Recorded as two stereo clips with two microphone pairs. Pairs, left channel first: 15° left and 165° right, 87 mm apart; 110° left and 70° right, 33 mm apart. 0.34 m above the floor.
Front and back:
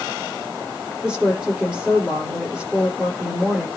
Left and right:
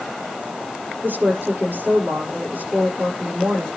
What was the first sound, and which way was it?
A woman speaking, 90° right.